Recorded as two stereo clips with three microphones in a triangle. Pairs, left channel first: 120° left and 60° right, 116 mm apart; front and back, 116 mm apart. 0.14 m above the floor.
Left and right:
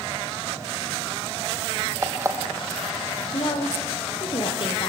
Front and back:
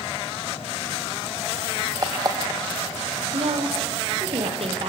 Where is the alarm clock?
125° right, 2.5 m.